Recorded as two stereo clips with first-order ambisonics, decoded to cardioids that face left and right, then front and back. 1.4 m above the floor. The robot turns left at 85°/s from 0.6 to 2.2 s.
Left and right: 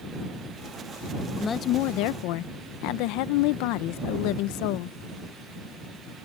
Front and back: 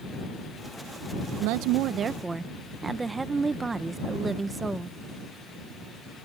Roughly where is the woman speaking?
Behind.